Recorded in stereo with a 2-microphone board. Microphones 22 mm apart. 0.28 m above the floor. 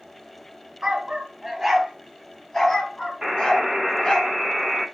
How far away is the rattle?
I don't hear a rattle.